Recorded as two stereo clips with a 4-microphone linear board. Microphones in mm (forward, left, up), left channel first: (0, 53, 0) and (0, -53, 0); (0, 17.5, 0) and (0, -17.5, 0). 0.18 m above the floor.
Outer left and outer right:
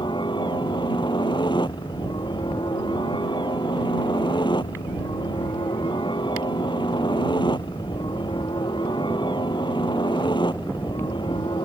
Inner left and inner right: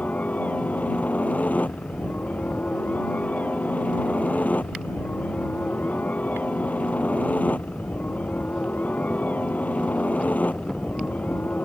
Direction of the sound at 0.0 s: 50° left (ahead or behind).